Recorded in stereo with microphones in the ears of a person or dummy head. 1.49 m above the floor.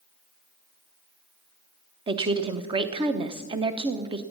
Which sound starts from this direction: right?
A woman speaking, at 2.1 s.